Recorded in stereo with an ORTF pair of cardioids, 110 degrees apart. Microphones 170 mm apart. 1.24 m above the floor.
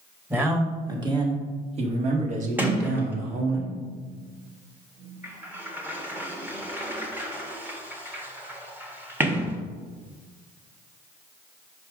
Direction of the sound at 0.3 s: 15° right.